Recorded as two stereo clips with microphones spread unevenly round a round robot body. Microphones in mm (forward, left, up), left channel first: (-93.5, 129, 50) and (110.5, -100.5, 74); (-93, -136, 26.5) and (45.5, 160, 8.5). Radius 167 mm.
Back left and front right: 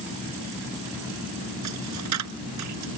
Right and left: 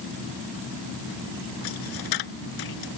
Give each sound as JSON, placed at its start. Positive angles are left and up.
{"t": 1.6, "sound": "a dropped coin", "azimuth_deg": -90}